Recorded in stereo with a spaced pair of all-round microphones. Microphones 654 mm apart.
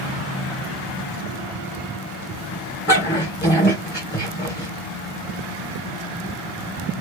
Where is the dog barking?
15° left (ahead or behind), 2.5 m.